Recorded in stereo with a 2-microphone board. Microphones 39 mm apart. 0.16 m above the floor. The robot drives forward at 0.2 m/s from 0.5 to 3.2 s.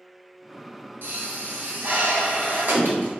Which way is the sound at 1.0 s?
70° right (ahead or behind).